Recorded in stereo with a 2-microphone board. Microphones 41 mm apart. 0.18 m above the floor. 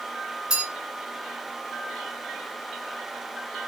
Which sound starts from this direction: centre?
A bell, at 0.5 s.